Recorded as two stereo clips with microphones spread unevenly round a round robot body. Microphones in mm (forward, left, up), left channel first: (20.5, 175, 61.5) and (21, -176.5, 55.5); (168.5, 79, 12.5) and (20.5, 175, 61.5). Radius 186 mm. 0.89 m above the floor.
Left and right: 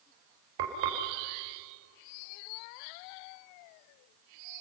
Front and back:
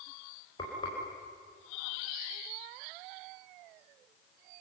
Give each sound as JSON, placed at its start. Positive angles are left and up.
{"t": 0.6, "sound": "frying", "azimuth_deg": -105, "distance_m": 4.5}